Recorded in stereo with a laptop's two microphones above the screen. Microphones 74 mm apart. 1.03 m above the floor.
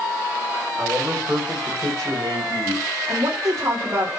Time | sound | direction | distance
0.8 | a man speaking | 30° right (ahead or behind) | 4.5 m
3.1 | a woman speaking | 45° right (ahead or behind) | 2 m